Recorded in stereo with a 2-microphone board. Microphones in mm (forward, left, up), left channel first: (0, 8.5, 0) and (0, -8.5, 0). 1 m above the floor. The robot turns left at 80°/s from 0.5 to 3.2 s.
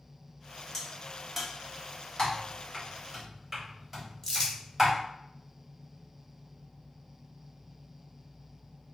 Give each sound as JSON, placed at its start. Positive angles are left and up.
{"t": 0.7, "sound": "a crack", "side_deg": 20, "distance_m": 0.8}
{"t": 2.2, "sound": "typing on a keyboard", "side_deg": 50, "distance_m": 1.4}
{"t": 4.2, "sound": "crumpling", "side_deg": 20, "distance_m": 1.4}